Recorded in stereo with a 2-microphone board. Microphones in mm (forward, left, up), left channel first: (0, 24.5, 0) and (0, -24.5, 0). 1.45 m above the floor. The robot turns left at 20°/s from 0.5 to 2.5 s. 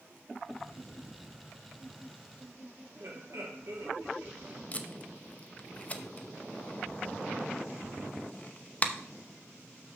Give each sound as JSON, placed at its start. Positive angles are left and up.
{"t": 3.0, "sound": "laughter", "side_deg": -65, "distance_m": 3.0}
{"t": 4.7, "sound": "tape being pulled", "side_deg": 30, "distance_m": 0.7}